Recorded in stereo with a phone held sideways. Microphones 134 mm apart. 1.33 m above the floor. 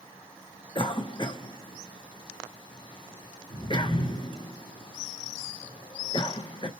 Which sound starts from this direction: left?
A cough, at 0.8 s.